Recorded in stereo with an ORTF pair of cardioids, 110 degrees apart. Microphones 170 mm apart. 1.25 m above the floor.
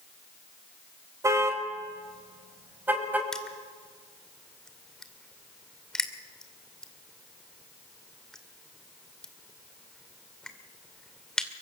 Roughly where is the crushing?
Ahead.